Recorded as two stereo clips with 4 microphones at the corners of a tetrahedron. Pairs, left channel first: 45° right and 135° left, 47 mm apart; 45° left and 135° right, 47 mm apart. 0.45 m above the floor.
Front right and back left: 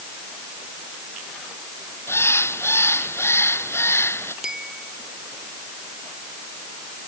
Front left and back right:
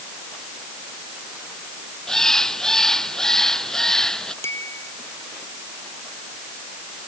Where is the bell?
60° left.